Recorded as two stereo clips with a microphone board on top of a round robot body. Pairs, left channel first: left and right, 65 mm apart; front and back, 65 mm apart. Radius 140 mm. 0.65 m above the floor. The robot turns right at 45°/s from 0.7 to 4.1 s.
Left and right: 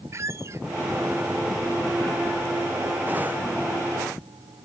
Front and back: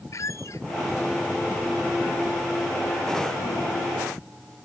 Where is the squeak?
45° right.